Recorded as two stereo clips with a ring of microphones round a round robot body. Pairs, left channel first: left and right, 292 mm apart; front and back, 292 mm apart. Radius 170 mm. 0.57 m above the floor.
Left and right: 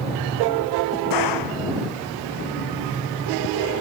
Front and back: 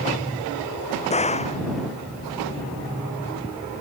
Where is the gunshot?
70° left.